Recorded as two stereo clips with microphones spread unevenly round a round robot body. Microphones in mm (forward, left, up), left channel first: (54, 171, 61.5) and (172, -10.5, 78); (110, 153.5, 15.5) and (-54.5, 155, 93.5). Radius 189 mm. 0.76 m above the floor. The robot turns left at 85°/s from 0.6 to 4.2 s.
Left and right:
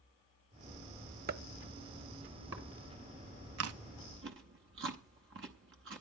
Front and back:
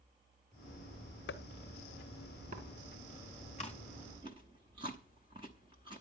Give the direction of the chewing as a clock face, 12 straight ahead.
2 o'clock.